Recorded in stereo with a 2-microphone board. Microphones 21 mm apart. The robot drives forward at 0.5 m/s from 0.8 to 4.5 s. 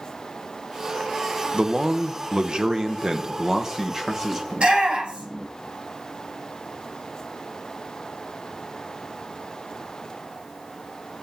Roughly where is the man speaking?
Right.